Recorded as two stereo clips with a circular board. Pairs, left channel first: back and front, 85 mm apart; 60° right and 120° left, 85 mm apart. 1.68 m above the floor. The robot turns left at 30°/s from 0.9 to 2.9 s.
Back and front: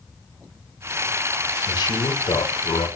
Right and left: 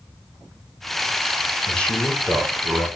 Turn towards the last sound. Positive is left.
turn(degrees=-170)